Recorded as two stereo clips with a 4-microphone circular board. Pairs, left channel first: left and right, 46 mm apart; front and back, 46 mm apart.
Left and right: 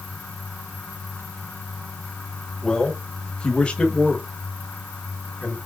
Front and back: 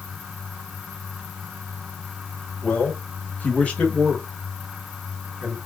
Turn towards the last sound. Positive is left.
turn(degrees=115)